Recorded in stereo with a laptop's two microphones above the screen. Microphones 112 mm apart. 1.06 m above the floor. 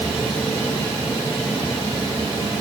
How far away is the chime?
I don't hear a chime.